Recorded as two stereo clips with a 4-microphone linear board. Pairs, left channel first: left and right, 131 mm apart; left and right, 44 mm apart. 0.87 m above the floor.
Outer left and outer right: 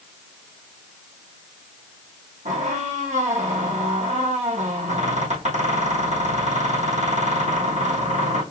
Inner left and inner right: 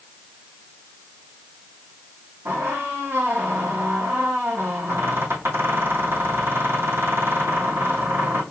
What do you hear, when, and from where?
2.5 s a squeak: 65° right (ahead or behind), 3 m